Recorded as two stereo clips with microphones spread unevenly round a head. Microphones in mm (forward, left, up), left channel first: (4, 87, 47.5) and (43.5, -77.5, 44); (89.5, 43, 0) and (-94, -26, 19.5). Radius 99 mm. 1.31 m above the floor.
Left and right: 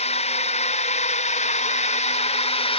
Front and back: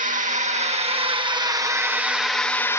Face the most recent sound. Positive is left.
turn(degrees=80)